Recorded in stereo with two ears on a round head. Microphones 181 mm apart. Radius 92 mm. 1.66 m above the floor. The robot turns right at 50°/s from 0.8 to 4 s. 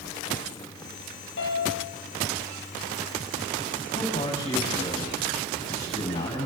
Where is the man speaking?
25° left (ahead or behind), 9.5 m; by 6.5 s 30° left (ahead or behind), 9.5 m.